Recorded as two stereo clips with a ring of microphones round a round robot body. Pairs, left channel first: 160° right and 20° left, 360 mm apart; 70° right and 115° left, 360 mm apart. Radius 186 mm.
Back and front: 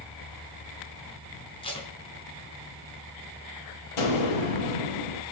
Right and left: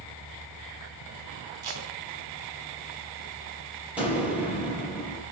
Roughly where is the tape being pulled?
Behind left.